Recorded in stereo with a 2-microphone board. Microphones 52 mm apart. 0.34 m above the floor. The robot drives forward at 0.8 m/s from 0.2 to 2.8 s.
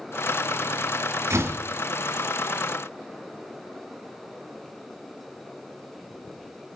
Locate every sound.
1.3 s a door slam: 60° right (ahead or behind), 1.7 m; by 1.6 s 55° right (ahead or behind), 1.8 m